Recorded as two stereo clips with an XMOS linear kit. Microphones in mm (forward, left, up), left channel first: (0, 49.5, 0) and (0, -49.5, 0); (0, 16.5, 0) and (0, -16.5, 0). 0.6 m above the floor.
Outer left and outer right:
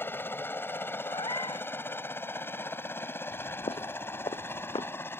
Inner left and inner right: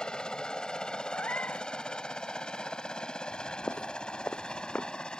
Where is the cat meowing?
50° left (ahead or behind).